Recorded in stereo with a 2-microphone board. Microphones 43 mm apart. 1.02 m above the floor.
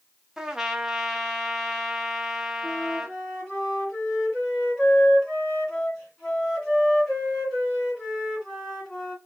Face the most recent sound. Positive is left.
turn(degrees=5)  # may be behind; listen again after turning